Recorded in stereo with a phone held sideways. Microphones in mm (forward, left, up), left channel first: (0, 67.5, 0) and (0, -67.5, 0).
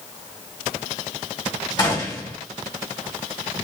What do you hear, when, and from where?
1.8 s a gunshot: 30° left (ahead or behind), 1.5 m